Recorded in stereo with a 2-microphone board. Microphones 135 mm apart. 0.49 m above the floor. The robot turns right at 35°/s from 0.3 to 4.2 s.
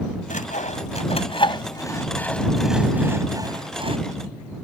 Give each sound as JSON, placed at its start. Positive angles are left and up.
{"t": 0.3, "sound": "sawing", "side_deg": 75}